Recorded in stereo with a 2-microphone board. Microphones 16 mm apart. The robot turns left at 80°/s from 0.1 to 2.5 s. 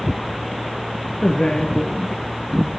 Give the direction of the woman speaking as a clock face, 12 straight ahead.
10 o'clock.